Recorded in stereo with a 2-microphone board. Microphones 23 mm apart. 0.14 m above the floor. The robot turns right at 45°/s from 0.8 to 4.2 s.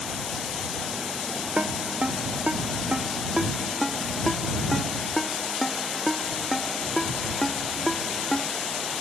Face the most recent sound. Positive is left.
turn(degrees=15)  # may be behind; listen again after turning